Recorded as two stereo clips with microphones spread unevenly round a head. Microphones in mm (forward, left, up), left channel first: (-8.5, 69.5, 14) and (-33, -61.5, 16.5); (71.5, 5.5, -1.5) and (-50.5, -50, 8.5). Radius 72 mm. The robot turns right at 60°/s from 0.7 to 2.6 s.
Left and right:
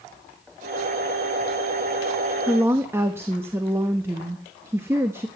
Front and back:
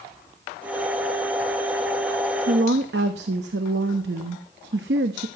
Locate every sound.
2.5 s a woman speaking: straight behind, 1.3 m; by 5.3 s 175° right, 1.3 m